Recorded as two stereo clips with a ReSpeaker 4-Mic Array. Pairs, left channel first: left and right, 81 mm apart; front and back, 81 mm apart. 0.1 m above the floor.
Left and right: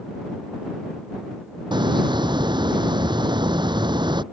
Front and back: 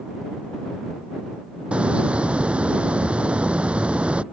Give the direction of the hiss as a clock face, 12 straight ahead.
4 o'clock.